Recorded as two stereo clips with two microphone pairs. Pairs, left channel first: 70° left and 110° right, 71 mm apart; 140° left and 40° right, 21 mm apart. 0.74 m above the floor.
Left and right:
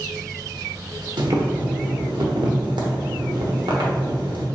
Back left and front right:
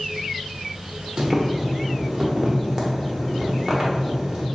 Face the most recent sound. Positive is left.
turn(degrees=-95)